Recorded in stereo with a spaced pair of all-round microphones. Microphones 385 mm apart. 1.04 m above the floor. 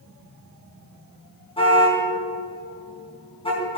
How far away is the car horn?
About 4.5 m.